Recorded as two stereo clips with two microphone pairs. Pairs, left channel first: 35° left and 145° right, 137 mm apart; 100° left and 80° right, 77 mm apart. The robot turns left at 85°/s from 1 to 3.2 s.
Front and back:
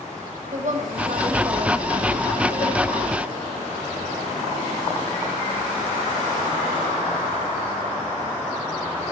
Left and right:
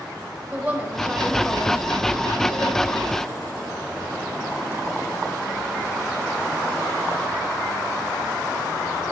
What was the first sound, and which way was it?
A woman speaking, 155° right.